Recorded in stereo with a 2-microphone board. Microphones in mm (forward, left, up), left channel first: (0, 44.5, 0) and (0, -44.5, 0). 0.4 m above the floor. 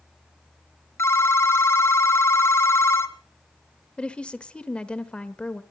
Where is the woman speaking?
10° left (ahead or behind), 1.0 m.